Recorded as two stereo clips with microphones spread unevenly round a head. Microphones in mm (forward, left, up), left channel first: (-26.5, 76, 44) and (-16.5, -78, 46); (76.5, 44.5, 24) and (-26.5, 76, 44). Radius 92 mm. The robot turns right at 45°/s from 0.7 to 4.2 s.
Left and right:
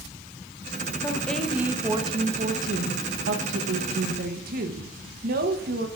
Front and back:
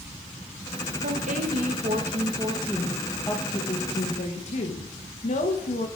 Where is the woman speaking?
165° left, 1.0 m; by 5.9 s 50° right, 1.0 m.